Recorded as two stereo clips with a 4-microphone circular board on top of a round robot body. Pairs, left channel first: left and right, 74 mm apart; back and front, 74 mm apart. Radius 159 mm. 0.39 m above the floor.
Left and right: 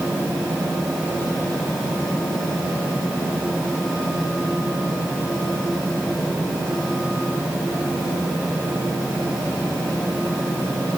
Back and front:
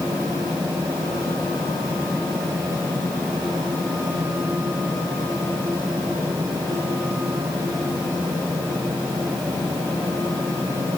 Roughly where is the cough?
I don't hear a cough.